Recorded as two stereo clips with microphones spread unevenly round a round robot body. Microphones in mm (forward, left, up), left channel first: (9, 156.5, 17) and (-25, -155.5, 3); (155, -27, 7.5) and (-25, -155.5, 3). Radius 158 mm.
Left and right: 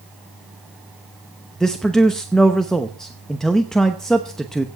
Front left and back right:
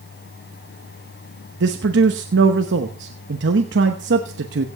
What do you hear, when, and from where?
1.6 s a man speaking: 175° left, 0.8 m